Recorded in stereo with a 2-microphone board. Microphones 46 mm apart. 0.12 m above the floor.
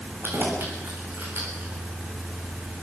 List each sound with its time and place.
0.2 s keys jangling: 45° right (ahead or behind), 7.5 m; by 1.7 s 50° right (ahead or behind), 8 m